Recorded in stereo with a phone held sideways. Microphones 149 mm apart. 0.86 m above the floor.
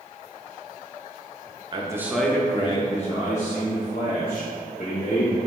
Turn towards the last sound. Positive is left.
turn(degrees=65)  # may be behind; listen again after turning